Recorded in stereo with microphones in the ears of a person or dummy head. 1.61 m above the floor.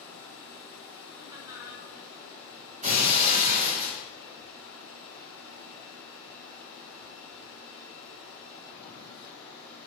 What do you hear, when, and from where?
0.0 s running water: 70° right (ahead or behind), 3 m
1.2 s laughter: 15° right (ahead or behind), 4 m
2.8 s breaking glass: 35° right (ahead or behind), 3.5 m